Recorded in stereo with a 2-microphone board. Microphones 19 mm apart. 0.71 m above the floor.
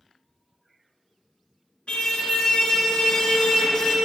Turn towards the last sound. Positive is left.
turn(degrees=45)  # may be behind; listen again after turning